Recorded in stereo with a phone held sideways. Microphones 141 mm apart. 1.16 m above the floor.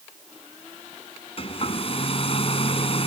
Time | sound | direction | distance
1.4 | a hair dryer | 45° left (ahead or behind) | ?